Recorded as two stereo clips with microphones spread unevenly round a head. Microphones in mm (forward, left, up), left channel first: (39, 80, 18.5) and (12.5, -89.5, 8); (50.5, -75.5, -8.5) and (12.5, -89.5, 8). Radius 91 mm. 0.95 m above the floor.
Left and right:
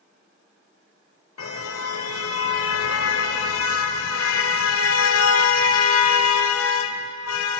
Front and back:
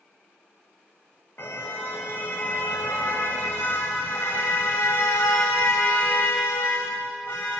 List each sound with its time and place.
1.4 s a car horn: 100° left, 2 m